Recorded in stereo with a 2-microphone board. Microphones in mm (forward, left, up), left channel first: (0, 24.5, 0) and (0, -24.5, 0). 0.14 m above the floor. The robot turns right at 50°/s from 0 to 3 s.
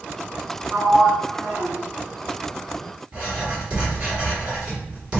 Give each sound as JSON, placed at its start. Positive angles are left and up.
{"t": 0.7, "sound": "a sliding door", "azimuth_deg": -110, "distance_m": 0.8}
{"t": 3.1, "sound": "writing", "side_deg": -20, "distance_m": 2.0}